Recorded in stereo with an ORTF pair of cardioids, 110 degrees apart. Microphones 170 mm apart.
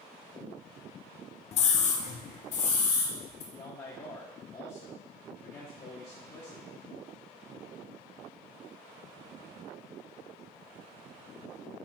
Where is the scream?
40° left, 0.5 m; by 3.4 s 50° left, 1.5 m.